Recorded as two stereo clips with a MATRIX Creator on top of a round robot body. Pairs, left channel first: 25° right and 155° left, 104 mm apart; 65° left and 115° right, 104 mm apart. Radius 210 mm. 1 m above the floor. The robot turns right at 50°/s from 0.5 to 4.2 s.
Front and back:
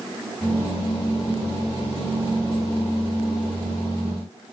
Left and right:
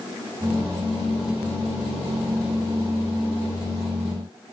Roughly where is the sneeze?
No sneeze in this recording.